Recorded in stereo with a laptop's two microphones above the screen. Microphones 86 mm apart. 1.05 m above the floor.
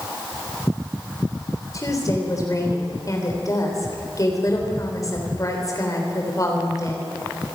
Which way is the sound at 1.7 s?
40° left (ahead or behind).